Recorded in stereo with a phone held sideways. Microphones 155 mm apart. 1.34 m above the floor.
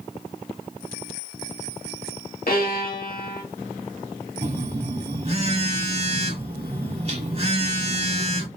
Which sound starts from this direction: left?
A violin, at 2.5 s.